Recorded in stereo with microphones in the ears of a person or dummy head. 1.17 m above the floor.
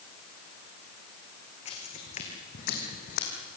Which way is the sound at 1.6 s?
35° left (ahead or behind).